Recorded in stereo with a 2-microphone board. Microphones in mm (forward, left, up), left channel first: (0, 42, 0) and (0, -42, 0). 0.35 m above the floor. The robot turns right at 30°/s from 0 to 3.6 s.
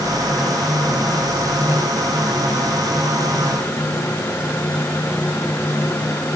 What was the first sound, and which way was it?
Only background noise.